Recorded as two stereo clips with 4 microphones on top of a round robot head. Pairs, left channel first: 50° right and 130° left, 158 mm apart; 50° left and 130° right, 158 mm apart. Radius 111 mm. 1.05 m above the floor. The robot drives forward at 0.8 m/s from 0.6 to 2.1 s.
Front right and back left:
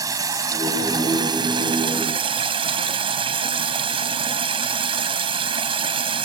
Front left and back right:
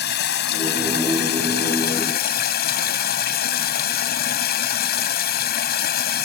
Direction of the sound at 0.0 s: 60° left.